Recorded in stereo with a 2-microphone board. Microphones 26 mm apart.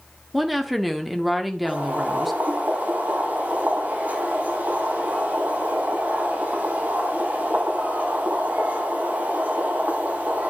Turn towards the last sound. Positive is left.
turn(degrees=-80)